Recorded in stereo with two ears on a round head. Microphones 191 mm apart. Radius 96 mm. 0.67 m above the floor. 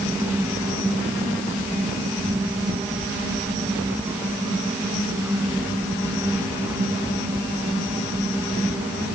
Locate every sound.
Only background noise.